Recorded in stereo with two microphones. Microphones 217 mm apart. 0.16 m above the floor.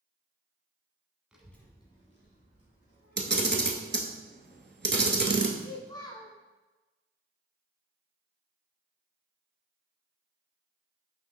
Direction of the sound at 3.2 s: 50° right (ahead or behind).